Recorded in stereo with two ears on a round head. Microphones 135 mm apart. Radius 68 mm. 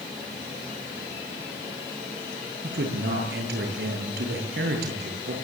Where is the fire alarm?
I don't hear a fire alarm.